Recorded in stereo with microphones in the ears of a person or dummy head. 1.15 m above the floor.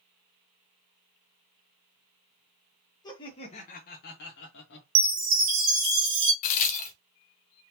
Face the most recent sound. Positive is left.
turn(degrees=40)  # may be behind; listen again after turning